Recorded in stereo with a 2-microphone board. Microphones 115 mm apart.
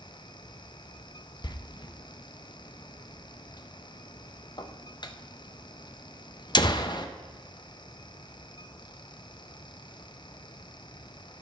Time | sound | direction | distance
1.4 | a door slam | 40° left (ahead or behind) | 0.6 m